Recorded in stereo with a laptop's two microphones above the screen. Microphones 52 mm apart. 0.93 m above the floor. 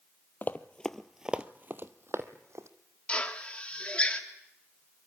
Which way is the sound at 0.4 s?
40° left (ahead or behind).